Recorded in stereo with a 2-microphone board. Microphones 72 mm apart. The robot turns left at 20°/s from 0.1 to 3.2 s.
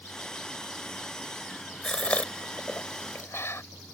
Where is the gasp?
10° left (ahead or behind); by 3.6 s 35° left (ahead or behind).